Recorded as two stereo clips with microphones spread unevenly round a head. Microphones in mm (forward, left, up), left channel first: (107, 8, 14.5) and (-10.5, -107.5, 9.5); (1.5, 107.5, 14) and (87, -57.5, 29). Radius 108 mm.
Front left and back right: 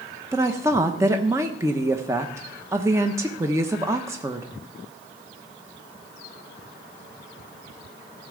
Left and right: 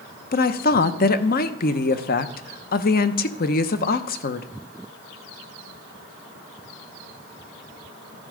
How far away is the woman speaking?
About 0.7 m.